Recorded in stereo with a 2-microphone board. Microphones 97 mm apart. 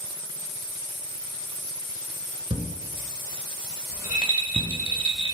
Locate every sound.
2.5 s a thud: 65° right (ahead or behind), 0.8 m
3.9 s a rattle: 60° right (ahead or behind), 1.6 m